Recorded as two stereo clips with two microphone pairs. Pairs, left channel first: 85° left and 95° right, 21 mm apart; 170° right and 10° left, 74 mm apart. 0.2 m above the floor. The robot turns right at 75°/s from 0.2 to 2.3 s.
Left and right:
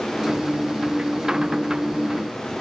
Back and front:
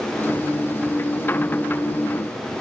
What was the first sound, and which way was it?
Only background noise.